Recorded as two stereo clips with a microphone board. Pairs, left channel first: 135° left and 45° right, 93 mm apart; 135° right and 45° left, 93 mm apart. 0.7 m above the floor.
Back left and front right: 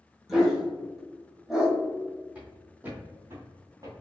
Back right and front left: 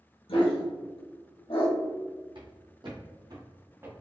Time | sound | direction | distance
0.3 | a dog barking | 130° right | 1.3 m
2.4 | footsteps | 30° left | 2.0 m